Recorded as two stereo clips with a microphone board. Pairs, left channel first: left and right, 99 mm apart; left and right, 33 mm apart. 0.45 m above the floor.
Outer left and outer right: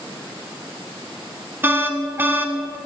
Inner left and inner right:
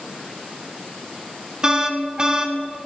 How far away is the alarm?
About 0.9 m.